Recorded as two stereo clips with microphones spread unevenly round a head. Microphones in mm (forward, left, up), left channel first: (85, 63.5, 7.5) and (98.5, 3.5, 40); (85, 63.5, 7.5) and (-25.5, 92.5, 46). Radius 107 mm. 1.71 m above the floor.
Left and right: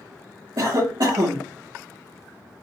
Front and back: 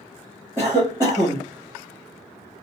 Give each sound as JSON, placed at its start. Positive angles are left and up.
{"t": 0.6, "sound": "a cough", "azimuth_deg": -115, "distance_m": 0.8}